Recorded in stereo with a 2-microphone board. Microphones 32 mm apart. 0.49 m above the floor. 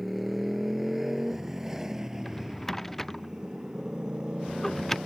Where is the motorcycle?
5° right (ahead or behind); by 5.1 s 25° right (ahead or behind).